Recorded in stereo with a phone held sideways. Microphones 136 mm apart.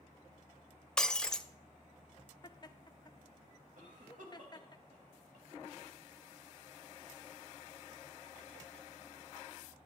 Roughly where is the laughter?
Left.